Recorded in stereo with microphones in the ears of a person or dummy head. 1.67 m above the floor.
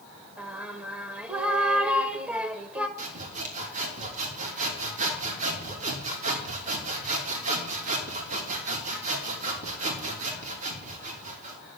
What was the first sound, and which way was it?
Singing, 5° right (ahead or behind).